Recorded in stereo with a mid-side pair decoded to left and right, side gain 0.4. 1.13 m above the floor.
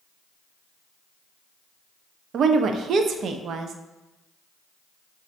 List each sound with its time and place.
2.3 s a woman speaking: 70° right, 0.5 m